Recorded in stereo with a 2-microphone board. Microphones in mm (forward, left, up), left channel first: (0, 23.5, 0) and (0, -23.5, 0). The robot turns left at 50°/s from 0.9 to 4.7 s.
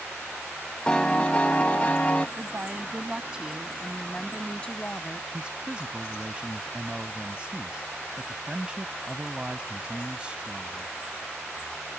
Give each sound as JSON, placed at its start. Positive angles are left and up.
{"t": 0.9, "sound": "a piano", "azimuth_deg": 140}
{"t": 2.4, "sound": "a woman speaking", "azimuth_deg": -100}
{"t": 5.3, "sound": "a man speaking", "side_deg": -20}